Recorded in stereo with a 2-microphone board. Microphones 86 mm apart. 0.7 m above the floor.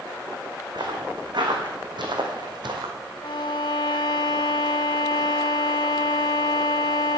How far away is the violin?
About 0.9 m.